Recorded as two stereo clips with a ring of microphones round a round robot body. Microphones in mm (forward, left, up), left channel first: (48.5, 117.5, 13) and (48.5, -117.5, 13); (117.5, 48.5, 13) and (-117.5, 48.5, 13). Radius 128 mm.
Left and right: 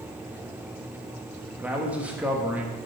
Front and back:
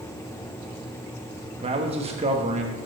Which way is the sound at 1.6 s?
165° right.